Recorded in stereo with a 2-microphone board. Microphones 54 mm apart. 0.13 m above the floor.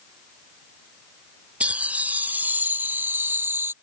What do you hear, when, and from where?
1.6 s laughter: 20° right (ahead or behind); by 3.7 s 45° right (ahead or behind)